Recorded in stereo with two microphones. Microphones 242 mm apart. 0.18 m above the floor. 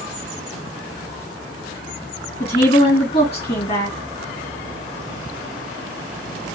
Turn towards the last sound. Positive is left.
turn(degrees=25)  # may be behind; listen again after turning